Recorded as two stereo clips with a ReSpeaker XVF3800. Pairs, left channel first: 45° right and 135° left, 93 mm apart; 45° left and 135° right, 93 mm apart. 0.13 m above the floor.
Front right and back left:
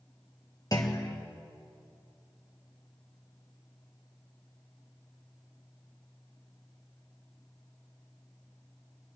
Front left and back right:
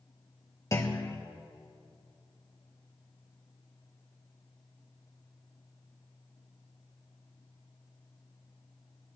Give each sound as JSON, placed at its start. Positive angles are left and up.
{"t": 0.7, "sound": "a clunk", "azimuth_deg": -5, "distance_m": 1.3}